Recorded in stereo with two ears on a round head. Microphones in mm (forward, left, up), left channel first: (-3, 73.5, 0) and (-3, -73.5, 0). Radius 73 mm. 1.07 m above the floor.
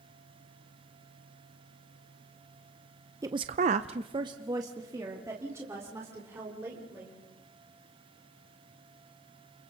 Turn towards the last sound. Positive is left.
turn(degrees=-15)  # may be behind; listen again after turning